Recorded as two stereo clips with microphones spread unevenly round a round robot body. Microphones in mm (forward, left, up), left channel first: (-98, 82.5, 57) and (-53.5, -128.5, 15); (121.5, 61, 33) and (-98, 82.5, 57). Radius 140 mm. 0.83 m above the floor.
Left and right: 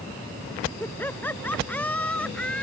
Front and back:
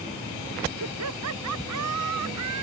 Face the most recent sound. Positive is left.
turn(degrees=-175)